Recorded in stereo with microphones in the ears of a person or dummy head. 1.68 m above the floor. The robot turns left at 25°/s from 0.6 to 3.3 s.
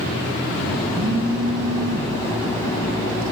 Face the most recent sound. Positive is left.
turn(degrees=-70)  # may be behind; listen again after turning